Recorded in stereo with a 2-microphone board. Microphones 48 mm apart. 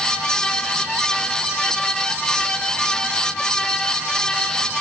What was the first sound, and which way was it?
Only background noise.